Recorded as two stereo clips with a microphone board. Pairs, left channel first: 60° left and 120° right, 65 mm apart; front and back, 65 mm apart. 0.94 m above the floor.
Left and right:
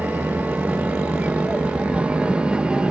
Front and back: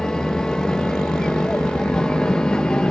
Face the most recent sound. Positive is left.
turn(degrees=-65)